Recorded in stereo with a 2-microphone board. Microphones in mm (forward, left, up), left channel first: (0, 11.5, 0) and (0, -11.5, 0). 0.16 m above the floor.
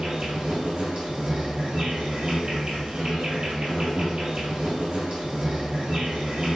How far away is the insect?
About 1.7 m.